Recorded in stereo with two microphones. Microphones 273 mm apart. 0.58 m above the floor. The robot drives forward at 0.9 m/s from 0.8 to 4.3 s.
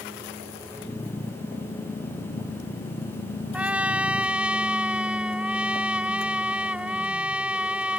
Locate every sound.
3.5 s a trumpet: 5° right (ahead or behind)